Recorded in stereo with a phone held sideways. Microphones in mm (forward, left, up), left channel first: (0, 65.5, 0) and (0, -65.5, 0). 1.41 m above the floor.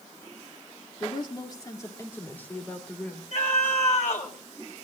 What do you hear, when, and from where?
1.0 s a woman speaking: 45° left (ahead or behind), 2.5 m; by 3.2 s 5° left (ahead or behind), 4.5 m
3.3 s a scream: 65° left (ahead or behind), 5.5 m